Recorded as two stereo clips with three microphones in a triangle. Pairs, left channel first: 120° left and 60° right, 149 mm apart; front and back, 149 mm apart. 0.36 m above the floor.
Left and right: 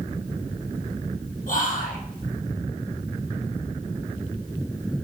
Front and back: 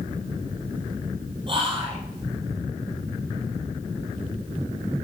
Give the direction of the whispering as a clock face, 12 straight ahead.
8 o'clock.